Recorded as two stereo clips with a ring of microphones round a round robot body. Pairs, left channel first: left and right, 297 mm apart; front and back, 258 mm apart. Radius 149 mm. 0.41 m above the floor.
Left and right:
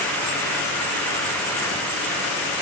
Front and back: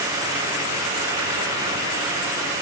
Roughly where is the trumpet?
No trumpet in this recording.